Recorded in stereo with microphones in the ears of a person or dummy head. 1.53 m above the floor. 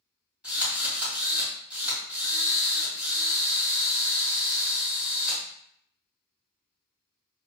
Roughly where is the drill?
Centre.